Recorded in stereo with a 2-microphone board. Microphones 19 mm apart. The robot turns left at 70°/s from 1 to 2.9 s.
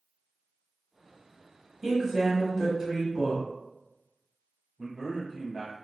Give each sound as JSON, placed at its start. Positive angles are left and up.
{"t": 1.8, "sound": "a woman speaking", "side_deg": -5, "distance_m": 1.1}
{"t": 4.8, "sound": "a man speaking", "side_deg": -25, "distance_m": 1.1}